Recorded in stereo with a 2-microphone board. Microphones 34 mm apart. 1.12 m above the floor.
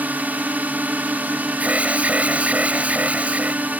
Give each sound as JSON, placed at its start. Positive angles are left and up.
{"t": 0.0, "sound": "a drone", "side_deg": -55}
{"t": 1.6, "sound": "an alarm", "side_deg": -40}